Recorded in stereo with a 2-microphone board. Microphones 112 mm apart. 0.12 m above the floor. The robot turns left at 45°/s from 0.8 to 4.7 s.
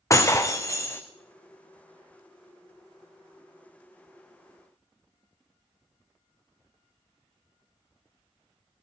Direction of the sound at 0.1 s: 30° left (ahead or behind).